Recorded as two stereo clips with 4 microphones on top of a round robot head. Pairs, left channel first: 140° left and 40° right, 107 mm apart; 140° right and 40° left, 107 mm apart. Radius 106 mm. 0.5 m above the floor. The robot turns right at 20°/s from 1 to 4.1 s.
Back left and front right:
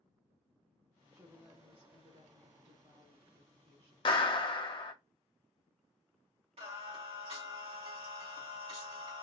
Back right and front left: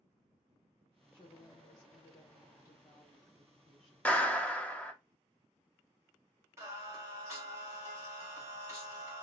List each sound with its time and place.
1.1 s a woman speaking: 110° right, 1.2 m; by 4.0 s 50° right, 1.2 m
4.0 s a clap: 145° left, 0.8 m
6.6 s singing: 25° right, 1.4 m